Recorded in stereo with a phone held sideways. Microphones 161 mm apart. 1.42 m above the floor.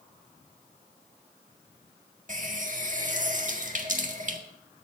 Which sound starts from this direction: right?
A running tap, at 2.3 s.